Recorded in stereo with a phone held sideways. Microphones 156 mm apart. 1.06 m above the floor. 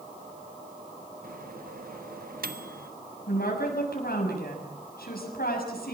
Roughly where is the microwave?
Right.